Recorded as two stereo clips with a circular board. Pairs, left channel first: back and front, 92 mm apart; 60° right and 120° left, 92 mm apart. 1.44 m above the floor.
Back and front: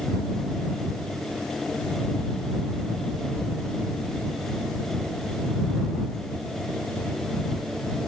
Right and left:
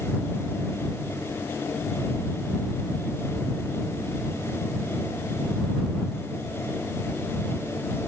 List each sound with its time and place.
Only background noise.